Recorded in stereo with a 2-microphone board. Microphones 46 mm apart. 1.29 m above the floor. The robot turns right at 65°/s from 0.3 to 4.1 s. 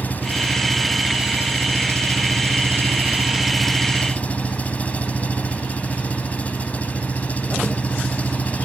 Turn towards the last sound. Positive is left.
turn(degrees=30)